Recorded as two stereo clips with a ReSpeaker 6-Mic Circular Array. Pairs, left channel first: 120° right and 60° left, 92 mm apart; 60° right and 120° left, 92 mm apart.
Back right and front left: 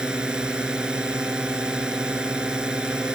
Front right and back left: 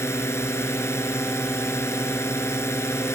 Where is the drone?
15° right.